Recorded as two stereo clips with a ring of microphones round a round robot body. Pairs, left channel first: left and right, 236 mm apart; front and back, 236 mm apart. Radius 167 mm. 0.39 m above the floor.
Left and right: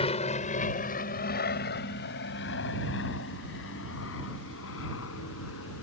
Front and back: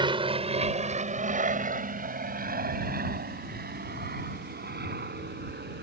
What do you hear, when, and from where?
0.0 s an aircraft: 130° left; by 5.8 s 135° left